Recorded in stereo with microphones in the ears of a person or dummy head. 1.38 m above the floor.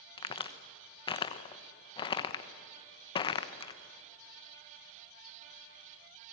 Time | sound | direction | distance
0.2 | a crack | 25° left (ahead or behind) | 1.1 m